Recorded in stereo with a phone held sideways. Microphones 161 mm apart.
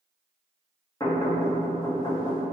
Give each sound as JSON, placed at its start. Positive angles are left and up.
{"t": 1.0, "sound": "knocking", "side_deg": 20, "distance_m": 1.6}